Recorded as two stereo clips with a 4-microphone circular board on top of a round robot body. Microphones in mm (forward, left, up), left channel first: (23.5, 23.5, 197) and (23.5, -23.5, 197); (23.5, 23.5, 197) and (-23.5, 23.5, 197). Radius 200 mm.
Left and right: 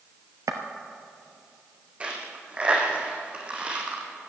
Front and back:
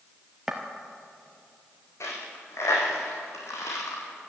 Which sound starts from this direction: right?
Footsteps, at 0.5 s.